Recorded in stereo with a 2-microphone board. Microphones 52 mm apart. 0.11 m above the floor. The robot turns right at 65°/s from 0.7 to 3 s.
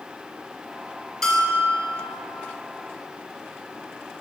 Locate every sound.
1.2 s a bell: 5° left (ahead or behind), 1.3 m; by 1.9 s 20° left (ahead or behind), 1.3 m